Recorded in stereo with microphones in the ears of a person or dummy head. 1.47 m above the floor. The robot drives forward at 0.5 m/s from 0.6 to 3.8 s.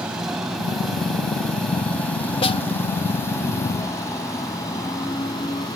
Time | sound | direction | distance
0.0 | a motorcycle | centre (ahead or behind) | ?
2.4 | a snare drum | 40° left (ahead or behind) | ?